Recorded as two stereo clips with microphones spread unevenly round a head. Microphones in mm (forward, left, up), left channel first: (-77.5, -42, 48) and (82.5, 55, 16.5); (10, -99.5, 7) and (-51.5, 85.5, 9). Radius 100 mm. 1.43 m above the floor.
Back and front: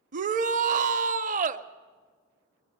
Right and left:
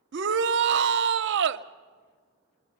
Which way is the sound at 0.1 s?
85° left.